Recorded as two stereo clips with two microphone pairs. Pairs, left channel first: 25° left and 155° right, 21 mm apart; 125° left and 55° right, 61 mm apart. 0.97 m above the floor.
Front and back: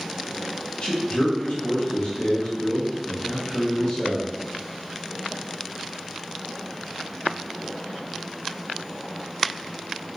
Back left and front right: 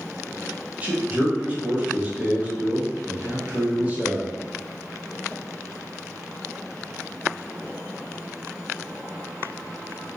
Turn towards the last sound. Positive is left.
turn(degrees=5)